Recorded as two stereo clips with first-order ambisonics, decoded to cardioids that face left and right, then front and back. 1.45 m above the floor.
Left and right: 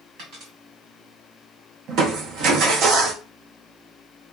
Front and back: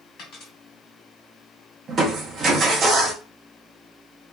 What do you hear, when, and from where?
0.2 s a dropped coin: 55° right, 2 m
1.9 s crushing: 125° right, 0.6 m